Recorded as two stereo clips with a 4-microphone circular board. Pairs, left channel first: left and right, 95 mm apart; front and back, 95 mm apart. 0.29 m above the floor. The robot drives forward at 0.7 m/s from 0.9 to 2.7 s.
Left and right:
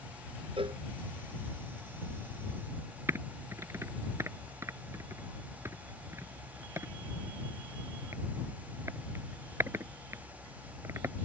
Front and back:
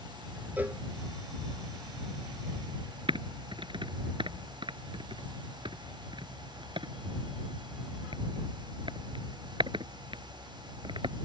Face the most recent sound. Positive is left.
turn(degrees=-150)